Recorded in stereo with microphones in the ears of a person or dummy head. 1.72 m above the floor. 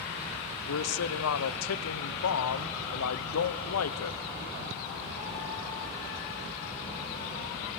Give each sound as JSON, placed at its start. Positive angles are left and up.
{"t": 0.7, "sound": "a man speaking", "side_deg": 85, "distance_m": 1.1}